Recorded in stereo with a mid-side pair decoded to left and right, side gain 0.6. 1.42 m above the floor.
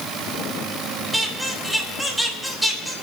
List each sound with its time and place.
1.1 s a squeak: straight ahead, 3 m